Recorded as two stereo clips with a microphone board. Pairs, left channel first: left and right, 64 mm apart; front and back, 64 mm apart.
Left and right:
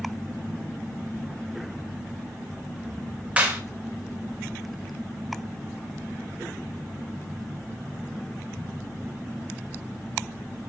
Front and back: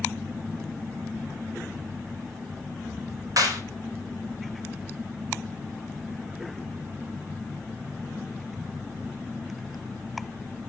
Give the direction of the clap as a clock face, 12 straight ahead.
5 o'clock.